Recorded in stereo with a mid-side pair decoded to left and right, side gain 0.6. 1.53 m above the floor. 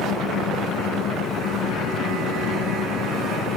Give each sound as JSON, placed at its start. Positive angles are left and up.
{"t": 0.0, "sound": "an engine running", "azimuth_deg": 65}